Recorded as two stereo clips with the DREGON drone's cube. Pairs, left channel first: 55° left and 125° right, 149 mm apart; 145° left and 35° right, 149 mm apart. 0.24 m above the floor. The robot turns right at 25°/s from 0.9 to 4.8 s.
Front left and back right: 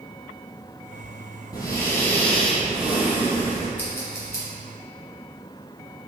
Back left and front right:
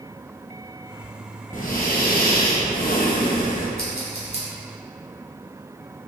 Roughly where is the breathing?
Behind left.